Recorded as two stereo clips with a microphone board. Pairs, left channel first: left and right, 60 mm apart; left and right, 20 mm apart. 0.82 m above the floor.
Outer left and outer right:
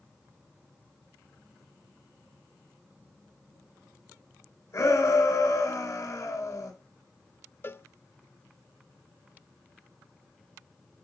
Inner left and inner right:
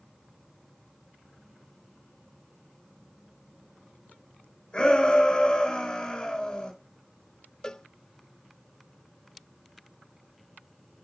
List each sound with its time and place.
4.7 s a shout: 45° left (ahead or behind), 6.5 m
7.6 s a cowbell: 40° left (ahead or behind), 0.5 m